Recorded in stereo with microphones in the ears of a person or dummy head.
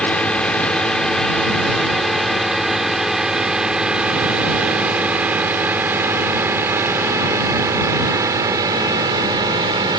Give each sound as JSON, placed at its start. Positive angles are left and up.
{"t": 0.0, "sound": "a drone", "side_deg": 5}